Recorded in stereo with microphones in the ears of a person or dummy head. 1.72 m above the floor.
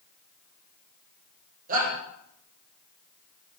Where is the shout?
55° right (ahead or behind), 8.5 m.